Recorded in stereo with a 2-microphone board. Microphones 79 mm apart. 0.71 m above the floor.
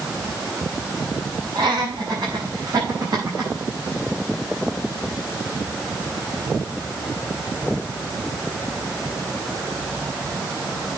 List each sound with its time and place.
1.6 s laughter: 80° right, 6 m; by 3.5 s 55° right (ahead or behind), 4.5 m